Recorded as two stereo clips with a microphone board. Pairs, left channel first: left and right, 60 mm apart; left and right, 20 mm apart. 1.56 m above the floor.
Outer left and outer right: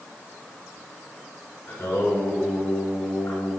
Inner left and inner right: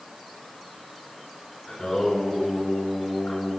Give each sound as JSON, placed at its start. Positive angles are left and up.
{"t": 1.7, "sound": "singing", "side_deg": 45, "distance_m": 5.5}